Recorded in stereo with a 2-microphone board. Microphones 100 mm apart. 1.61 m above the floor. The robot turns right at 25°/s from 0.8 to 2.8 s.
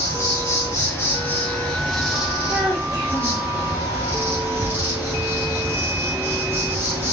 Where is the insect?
150° left, 1.2 m; by 7.1 s 160° right, 1.2 m.